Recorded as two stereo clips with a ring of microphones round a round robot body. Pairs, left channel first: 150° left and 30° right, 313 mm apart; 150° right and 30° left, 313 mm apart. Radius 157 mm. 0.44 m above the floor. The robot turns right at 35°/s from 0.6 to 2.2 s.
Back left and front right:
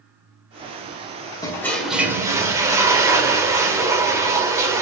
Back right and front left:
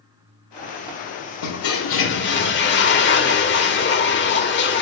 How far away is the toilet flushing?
About 1.6 m.